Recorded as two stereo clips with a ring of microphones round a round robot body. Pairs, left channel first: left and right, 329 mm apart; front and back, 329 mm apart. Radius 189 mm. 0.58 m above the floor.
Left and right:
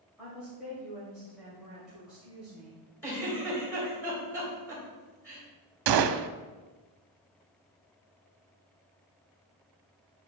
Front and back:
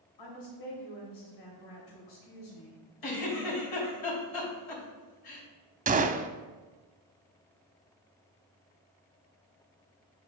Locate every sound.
0.2 s a woman speaking: straight ahead, 2.5 m
3.0 s a giggle: 5° left, 3 m
5.9 s a gunshot: 110° right, 0.6 m